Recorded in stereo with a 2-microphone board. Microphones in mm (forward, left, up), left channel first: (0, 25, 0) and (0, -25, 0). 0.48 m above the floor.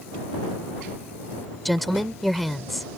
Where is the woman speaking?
Centre (ahead or behind).